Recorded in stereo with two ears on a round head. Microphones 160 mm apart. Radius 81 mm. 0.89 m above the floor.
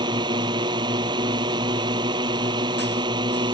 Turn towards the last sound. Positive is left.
turn(degrees=-25)  # may be behind; listen again after turning